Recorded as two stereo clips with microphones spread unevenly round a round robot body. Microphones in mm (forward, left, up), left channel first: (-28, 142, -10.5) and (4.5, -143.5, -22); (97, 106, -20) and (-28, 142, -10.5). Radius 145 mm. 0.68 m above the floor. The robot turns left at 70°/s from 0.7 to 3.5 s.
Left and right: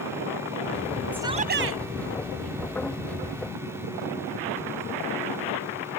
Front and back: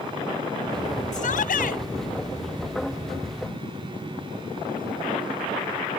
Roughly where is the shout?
Ahead.